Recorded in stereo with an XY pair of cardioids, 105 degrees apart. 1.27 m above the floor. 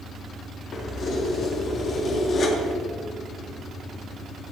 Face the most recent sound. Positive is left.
turn(degrees=45)